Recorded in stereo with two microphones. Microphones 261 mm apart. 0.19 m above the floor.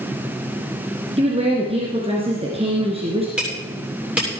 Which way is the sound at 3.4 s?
5° right (ahead or behind).